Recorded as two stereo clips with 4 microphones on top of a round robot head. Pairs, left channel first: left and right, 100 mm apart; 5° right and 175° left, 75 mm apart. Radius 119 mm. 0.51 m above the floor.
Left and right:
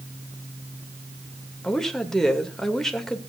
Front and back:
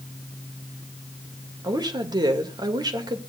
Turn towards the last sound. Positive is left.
turn(degrees=175)